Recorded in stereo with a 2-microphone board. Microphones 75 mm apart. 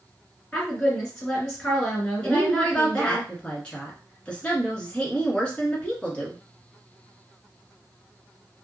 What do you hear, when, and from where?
0.5 s a woman speaking: 10° left (ahead or behind), 1.9 m
2.2 s a woman speaking: 15° left (ahead or behind), 1.3 m